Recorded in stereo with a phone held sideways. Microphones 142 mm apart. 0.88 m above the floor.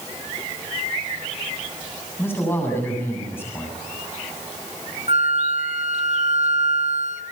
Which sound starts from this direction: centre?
A man speaking, at 2.2 s.